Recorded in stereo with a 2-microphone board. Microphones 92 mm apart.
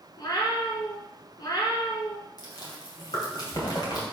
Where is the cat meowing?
50° left (ahead or behind), 1.7 m.